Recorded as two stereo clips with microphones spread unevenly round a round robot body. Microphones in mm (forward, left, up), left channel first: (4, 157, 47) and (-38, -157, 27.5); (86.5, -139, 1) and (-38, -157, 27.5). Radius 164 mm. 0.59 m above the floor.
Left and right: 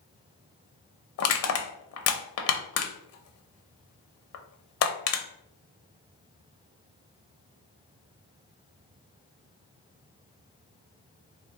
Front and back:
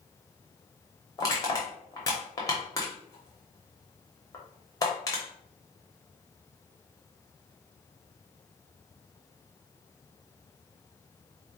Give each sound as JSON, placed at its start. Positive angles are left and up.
{"t": 1.2, "sound": "crushing", "azimuth_deg": 50, "distance_m": 0.7}